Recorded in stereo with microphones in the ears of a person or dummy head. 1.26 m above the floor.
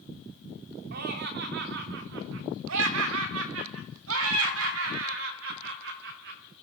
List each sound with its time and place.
0.9 s laughter: 55° right (ahead or behind), 3 m; by 6.4 s 70° right (ahead or behind), 5.5 m